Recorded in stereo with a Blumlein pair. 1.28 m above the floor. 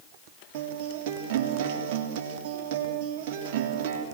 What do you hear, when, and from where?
0.5 s a guitar: 50° right, 3.5 m